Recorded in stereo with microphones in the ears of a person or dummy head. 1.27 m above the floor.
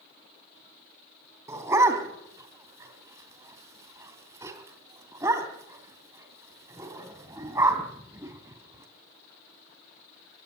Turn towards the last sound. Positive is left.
turn(degrees=-20)  # may be behind; listen again after turning